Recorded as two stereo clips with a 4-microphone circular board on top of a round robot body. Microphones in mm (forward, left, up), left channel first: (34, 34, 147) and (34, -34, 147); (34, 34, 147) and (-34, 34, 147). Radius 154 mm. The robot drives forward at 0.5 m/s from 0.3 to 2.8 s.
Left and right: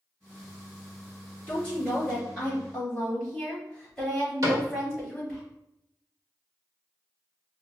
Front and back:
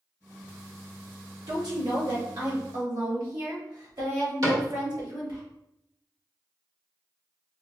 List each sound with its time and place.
1.5 s a woman speaking: 160° left, 2 m; by 5.4 s 165° left, 3 m
4.4 s a cupboard door: 140° right, 1.3 m